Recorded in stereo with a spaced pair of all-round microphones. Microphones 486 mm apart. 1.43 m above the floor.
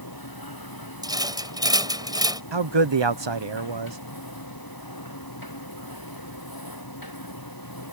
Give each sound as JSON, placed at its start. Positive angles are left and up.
{"t": 0.0, "sound": "a machine running", "side_deg": 45}
{"t": 1.0, "sound": "a rattle", "side_deg": -10}
{"t": 2.5, "sound": "a man speaking", "side_deg": -60}